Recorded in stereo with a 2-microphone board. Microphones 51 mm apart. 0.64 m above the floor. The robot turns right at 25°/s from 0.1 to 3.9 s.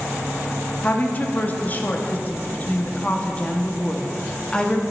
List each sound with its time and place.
0.8 s a woman speaking: 70° left, 0.7 m; by 4.8 s 145° left, 0.7 m